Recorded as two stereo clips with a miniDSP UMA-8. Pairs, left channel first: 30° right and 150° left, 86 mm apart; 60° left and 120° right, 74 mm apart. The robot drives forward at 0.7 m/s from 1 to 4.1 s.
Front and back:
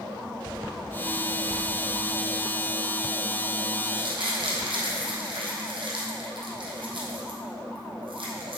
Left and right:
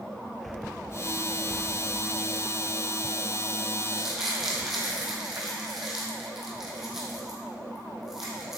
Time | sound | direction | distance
3.8 | crumpling | 150° left | 3 m